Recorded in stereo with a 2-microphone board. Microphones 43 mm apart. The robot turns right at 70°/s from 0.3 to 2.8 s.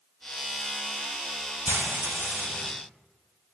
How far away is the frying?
About 0.9 m.